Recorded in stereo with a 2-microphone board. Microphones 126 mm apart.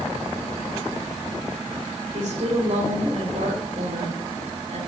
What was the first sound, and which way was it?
A woman speaking, 75° right (ahead or behind).